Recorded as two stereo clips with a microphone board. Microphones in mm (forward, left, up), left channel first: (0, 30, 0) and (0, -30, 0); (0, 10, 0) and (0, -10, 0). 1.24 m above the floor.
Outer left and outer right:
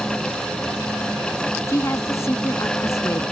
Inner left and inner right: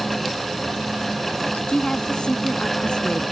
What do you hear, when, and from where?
1.7 s a woman speaking: 55° left (ahead or behind)